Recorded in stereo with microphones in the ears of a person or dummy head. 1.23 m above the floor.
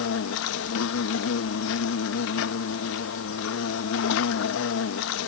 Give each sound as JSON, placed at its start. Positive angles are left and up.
{"t": 0.0, "sound": "an insect", "side_deg": 65}